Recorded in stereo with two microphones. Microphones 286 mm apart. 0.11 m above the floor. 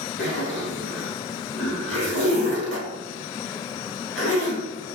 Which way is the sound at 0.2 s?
40° left (ahead or behind).